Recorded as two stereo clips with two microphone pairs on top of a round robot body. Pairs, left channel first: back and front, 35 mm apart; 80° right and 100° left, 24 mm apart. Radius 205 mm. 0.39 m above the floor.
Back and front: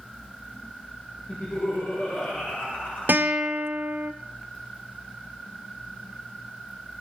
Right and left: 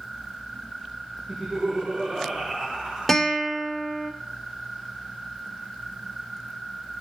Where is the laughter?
160° left, 6.5 m.